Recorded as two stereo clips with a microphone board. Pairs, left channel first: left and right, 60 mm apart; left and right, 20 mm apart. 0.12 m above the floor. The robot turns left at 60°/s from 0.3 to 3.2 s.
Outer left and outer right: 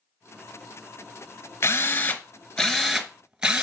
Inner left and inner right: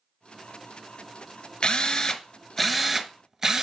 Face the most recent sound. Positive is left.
turn(degrees=-20)